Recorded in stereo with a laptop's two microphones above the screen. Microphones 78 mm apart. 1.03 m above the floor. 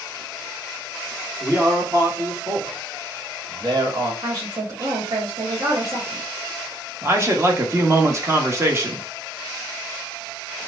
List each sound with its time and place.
1.4 s a man speaking: 40° right (ahead or behind), 2 m; by 4.1 s 55° right (ahead or behind), 1.3 m
4.2 s a woman speaking: 55° right (ahead or behind), 1.5 m
7.0 s a man speaking: 35° right (ahead or behind), 1.2 m